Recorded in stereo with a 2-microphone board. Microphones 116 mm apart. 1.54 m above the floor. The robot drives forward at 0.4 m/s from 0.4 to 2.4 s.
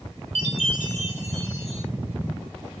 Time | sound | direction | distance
0.3 | a chime | 75° right (ahead or behind) | 3 m